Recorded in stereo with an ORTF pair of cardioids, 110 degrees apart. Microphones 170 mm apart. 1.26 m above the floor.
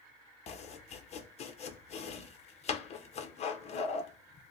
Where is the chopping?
40° left, 0.7 m.